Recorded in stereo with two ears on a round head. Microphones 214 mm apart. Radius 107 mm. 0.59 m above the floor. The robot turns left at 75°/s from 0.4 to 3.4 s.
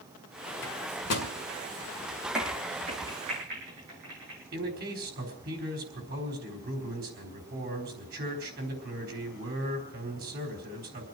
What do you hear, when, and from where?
0.6 s a microwave: 55° left (ahead or behind), 2 m; by 1.3 s 60° left (ahead or behind), 2 m
2.3 s a crack: centre (ahead or behind), 4.5 m; by 4.4 s 80° right, 4.5 m
4.5 s a man speaking: 45° right (ahead or behind), 4 m